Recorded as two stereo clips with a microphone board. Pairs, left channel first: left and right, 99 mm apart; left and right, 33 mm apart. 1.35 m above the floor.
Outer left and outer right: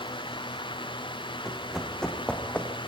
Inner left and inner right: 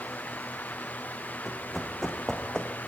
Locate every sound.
1.4 s running footsteps: centre (ahead or behind), 4 m; by 2.7 s 20° left (ahead or behind), 4 m